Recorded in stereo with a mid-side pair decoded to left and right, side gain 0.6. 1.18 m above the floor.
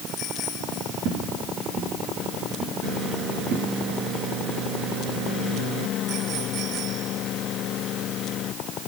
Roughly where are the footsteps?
Right.